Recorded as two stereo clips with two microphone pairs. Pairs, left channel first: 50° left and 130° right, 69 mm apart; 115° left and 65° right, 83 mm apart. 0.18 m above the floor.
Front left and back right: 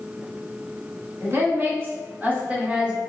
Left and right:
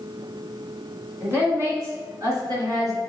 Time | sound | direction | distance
1.2 | a woman speaking | 110° right | 1.7 m